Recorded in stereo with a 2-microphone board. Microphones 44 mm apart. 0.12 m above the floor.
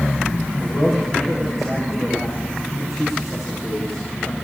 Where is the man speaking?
5° right (ahead or behind), 8.5 m.